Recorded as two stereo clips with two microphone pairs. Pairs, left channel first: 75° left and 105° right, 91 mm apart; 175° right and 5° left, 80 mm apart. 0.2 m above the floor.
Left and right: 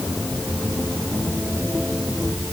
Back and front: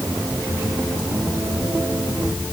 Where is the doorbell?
No doorbell in this recording.